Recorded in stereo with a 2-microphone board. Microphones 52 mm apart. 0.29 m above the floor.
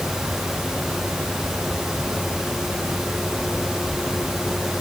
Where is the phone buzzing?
I don't hear a phone buzzing.